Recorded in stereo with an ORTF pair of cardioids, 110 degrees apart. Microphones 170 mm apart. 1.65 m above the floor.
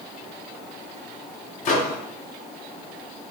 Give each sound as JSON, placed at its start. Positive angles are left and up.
{"t": 1.6, "sound": "a microwave", "azimuth_deg": 45, "distance_m": 0.6}